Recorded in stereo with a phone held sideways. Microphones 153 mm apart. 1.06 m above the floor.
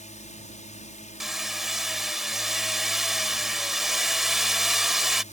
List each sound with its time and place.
0.0 s a drone: 55° left (ahead or behind)
1.2 s hammering: centre (ahead or behind)